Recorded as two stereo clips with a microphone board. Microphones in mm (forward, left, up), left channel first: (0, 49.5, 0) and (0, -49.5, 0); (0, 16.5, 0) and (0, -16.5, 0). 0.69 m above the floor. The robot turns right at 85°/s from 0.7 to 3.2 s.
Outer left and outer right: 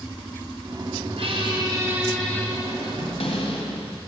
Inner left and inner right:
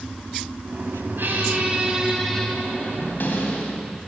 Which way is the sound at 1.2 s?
85° right.